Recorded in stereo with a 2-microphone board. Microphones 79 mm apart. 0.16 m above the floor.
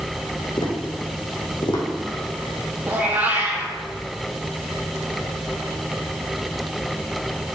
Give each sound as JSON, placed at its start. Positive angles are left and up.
{"t": 0.6, "sound": "tapping", "side_deg": 80, "distance_m": 2.5}
{"t": 2.9, "sound": "a cat meowing", "side_deg": -20, "distance_m": 1.8}